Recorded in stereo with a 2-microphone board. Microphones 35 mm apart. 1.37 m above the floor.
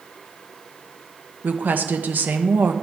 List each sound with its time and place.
1.4 s a woman speaking: 60° right (ahead or behind), 1.2 m